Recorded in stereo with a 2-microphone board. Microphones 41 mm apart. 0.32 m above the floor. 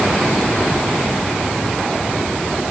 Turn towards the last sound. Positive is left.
No sound to turn to.